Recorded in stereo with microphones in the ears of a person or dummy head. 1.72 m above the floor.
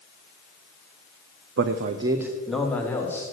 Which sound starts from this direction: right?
A man speaking, at 1.6 s.